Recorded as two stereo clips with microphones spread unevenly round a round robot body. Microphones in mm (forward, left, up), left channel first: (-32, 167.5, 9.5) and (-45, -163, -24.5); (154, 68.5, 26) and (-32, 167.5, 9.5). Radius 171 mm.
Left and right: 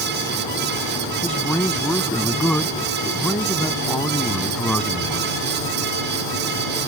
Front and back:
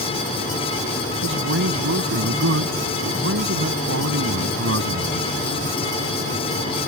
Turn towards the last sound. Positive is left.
turn(degrees=175)